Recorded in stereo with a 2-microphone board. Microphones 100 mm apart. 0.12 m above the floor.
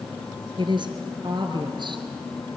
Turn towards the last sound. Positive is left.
turn(degrees=-50)  # may be behind; listen again after turning